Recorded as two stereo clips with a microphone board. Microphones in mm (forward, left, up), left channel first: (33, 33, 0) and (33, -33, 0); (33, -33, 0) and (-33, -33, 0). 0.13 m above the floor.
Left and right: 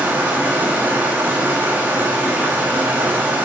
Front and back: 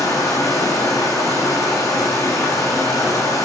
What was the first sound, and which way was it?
Running water, 30° right.